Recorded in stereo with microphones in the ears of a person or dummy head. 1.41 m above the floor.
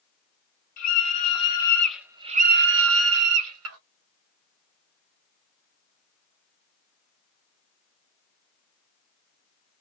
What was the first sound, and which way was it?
A scream, 40° left (ahead or behind).